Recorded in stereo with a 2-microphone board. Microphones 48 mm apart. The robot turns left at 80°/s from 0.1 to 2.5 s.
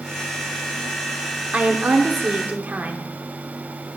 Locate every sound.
1.5 s a woman speaking: 40° right, 0.9 m; by 4.0 s 120° right, 0.9 m